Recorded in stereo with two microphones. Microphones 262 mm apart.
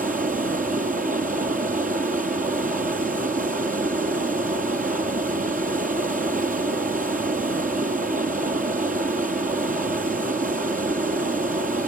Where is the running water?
30° right (ahead or behind), 1.6 m.